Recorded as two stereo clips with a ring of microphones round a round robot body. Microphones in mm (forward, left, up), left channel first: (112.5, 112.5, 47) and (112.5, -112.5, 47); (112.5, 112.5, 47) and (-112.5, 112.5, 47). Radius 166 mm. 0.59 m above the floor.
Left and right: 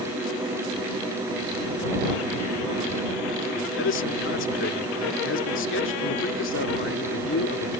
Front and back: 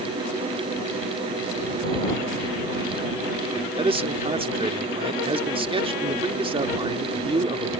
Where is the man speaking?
115° left.